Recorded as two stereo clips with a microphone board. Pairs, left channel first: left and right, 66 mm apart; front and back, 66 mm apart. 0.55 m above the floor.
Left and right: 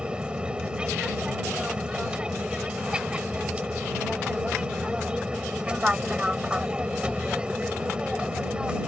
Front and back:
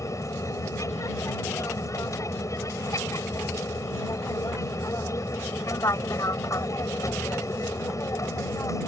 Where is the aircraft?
20° right.